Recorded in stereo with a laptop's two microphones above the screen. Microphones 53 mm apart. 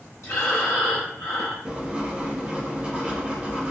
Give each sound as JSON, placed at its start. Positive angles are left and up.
{"t": 0.2, "sound": "breathing", "side_deg": 65, "distance_m": 1.1}
{"t": 1.6, "sound": "writing", "side_deg": -20, "distance_m": 0.6}